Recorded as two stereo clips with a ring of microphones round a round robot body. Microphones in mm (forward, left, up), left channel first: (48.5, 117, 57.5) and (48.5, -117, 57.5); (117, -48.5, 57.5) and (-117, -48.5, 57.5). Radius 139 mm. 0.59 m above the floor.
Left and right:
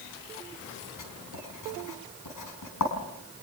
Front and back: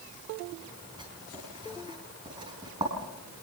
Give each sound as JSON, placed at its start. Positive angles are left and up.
{"t": 1.0, "sound": "writing", "azimuth_deg": 105, "distance_m": 4.5}